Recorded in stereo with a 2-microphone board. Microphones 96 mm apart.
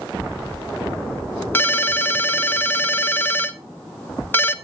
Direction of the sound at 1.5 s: 20° left (ahead or behind).